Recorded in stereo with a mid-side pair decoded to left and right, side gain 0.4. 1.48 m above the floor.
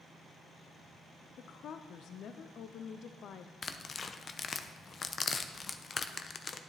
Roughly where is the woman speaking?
Left.